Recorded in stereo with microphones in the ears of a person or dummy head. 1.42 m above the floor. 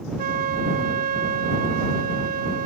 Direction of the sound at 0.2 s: 45° right (ahead or behind).